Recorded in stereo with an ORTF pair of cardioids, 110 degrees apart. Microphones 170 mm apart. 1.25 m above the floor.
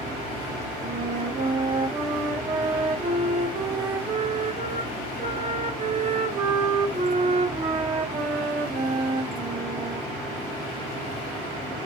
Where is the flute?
35° right, 0.7 m.